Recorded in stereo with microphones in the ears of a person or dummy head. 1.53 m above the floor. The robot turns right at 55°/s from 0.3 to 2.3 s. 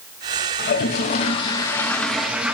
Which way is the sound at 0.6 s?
85° left.